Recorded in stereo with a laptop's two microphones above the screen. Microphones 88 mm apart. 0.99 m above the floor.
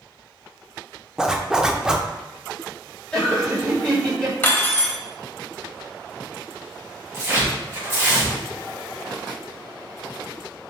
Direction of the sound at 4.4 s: 25° left (ahead or behind).